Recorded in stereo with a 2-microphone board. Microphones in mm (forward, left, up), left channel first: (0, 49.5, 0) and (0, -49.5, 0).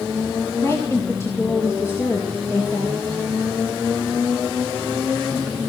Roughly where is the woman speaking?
Left.